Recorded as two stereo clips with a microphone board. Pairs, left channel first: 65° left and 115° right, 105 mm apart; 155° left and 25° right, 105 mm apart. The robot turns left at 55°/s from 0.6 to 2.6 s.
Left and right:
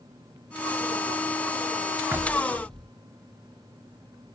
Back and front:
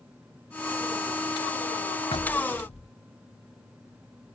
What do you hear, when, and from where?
2.1 s knocking: straight behind; by 2.9 s 150° left